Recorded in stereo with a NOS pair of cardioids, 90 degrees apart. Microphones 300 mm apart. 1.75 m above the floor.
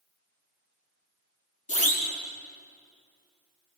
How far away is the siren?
About 6 m.